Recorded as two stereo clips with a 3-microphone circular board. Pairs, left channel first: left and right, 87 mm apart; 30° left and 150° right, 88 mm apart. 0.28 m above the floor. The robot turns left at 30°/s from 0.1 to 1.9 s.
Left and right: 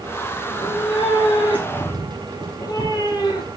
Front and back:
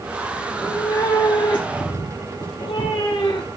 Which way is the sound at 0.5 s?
90° left.